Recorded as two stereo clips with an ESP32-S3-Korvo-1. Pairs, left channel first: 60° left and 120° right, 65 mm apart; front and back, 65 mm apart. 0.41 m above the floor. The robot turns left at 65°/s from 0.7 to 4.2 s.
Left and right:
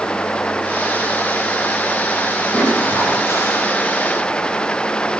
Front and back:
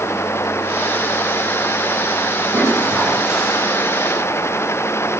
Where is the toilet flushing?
150° left, 9 m; by 3.6 s 80° left, 9 m.